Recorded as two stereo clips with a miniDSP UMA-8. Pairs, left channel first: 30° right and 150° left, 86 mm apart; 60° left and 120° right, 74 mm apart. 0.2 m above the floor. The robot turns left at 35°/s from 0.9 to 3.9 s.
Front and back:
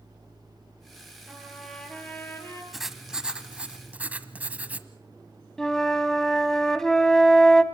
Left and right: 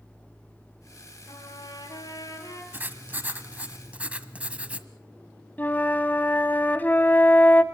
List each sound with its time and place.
1.3 s a trumpet: 70° left, 3 m; by 2.6 s 20° left, 3 m
2.7 s writing: 125° right, 1.1 m; by 4.9 s 165° right, 1.1 m
5.6 s a flute: 45° left, 0.9 m